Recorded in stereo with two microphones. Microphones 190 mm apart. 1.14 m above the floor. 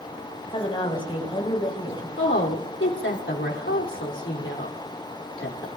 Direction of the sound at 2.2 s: 75° left (ahead or behind).